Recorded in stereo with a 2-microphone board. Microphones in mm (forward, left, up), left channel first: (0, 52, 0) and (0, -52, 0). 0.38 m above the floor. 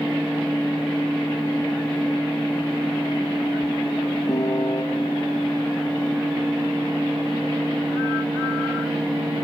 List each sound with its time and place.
4.3 s a piano: 35° left (ahead or behind), 1.1 m